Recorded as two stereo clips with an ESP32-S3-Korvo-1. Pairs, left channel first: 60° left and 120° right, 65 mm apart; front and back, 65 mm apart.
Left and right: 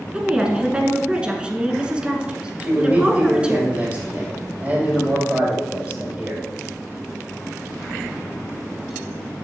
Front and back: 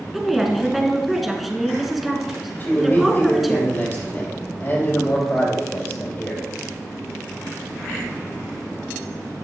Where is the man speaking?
55° right, 4.5 m.